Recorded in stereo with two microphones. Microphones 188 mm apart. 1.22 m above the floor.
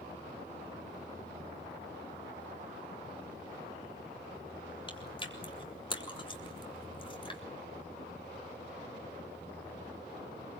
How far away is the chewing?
About 3.5 m.